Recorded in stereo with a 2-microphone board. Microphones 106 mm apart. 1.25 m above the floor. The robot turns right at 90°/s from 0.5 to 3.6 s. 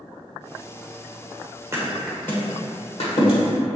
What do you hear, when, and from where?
1.7 s a thud: 25° right (ahead or behind), 1.5 m; by 3.4 s 50° left (ahead or behind), 1.5 m